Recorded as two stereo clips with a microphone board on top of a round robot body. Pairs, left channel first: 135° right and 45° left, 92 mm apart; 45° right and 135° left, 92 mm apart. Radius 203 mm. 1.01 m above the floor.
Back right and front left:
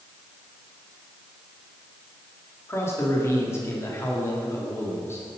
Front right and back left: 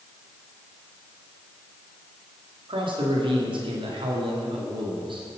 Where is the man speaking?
165° left, 2.5 m.